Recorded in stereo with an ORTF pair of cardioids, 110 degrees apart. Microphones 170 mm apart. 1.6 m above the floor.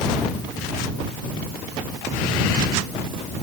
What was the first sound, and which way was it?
Only background noise.